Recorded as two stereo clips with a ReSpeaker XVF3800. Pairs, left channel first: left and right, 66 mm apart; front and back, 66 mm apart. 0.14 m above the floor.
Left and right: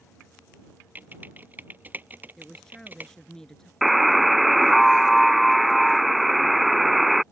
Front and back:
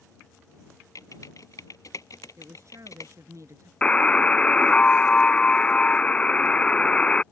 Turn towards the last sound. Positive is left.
turn(degrees=-5)